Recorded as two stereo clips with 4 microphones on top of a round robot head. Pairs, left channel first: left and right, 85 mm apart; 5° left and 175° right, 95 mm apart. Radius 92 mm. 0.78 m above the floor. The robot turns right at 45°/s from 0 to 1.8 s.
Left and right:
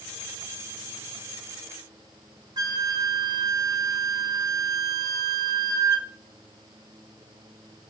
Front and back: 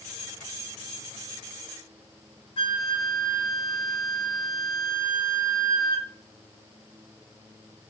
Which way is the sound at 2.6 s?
45° right.